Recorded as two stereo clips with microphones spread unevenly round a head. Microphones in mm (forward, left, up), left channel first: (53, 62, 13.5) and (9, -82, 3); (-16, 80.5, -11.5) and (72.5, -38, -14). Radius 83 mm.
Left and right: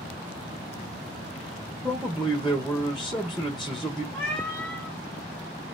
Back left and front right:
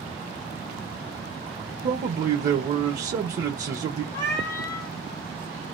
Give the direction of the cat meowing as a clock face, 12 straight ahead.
7 o'clock.